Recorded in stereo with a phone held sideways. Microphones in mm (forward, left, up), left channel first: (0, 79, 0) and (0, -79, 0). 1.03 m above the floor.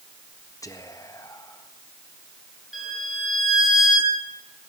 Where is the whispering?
20° left (ahead or behind), 1.4 m.